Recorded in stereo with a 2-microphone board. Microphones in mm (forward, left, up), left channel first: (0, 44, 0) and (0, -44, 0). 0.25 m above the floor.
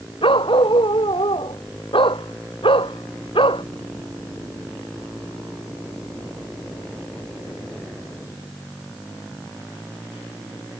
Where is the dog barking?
75° left (ahead or behind).